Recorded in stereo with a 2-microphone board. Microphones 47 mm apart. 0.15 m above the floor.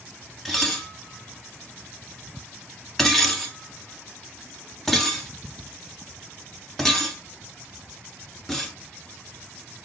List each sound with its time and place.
0.5 s dishes clattering: 5° left (ahead or behind), 0.9 m